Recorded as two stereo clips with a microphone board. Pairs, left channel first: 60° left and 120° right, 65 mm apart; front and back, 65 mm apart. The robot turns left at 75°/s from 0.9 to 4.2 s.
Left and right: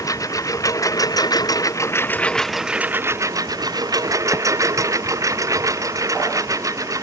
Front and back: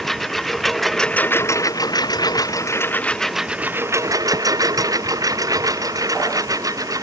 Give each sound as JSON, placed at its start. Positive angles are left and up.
{"t": 0.0, "sound": "a lawn mower", "azimuth_deg": 85}